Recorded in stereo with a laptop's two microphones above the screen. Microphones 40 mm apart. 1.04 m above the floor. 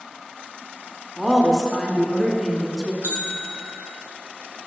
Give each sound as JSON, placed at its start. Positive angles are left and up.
{"t": 1.2, "sound": "a woman speaking", "side_deg": 15, "distance_m": 2.0}
{"t": 3.0, "sound": "a bell", "side_deg": -55, "distance_m": 1.5}